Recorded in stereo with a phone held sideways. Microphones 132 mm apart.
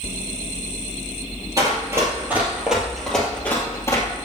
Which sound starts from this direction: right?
Running footsteps, at 1.6 s.